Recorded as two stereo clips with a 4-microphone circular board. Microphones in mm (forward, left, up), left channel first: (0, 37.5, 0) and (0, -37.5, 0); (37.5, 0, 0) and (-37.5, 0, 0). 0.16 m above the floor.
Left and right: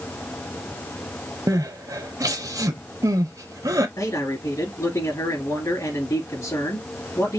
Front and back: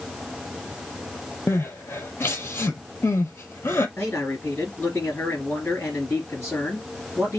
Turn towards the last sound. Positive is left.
turn(degrees=70)